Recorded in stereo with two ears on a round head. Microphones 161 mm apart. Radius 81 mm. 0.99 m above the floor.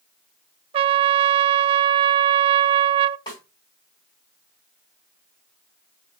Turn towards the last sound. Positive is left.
turn(degrees=20)  # may be behind; listen again after turning